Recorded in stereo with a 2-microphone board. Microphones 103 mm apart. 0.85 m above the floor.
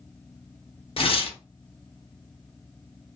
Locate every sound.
1.0 s tearing paper: 60° left (ahead or behind), 0.6 m